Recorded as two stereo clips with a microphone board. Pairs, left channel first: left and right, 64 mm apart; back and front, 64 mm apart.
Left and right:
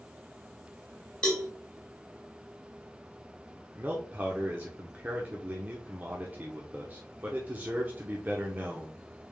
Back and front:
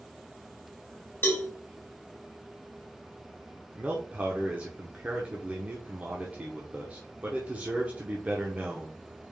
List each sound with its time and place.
1.2 s a cowbell: 155° left, 1.6 m
3.8 s a man speaking: 50° right, 0.8 m